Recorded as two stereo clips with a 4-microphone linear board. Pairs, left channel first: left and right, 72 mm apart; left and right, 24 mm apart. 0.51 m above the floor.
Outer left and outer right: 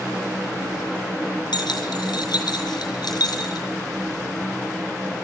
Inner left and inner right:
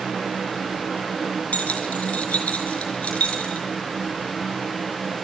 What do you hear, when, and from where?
1.5 s keys jangling: 85° left, 4.5 m; by 3.6 s 70° left (ahead or behind), 5 m